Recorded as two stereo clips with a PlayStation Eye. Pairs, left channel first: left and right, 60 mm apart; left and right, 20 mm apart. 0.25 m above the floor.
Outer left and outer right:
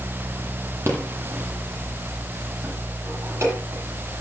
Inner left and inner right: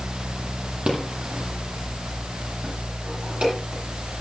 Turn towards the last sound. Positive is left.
turn(degrees=-55)  # may be behind; listen again after turning